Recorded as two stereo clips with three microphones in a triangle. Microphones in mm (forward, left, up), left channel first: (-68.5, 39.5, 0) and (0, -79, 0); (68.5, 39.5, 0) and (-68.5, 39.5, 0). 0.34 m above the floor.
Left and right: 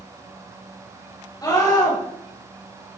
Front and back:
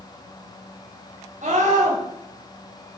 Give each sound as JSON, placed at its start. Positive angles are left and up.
{"t": 1.4, "sound": "a scream", "azimuth_deg": 180, "distance_m": 5.0}